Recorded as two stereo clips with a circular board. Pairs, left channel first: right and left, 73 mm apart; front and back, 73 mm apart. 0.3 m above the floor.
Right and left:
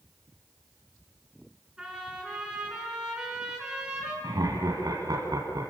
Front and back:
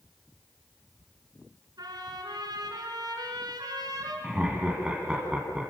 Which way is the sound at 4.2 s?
105° left.